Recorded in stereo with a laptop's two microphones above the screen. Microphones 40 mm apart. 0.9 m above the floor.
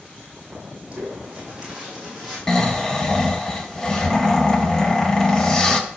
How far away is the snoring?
About 0.6 m.